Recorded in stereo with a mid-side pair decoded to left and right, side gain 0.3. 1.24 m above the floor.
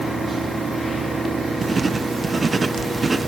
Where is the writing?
35° right, 0.8 m.